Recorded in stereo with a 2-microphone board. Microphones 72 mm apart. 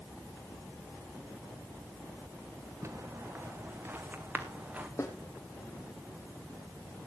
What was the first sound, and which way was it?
Footsteps, 35° right (ahead or behind).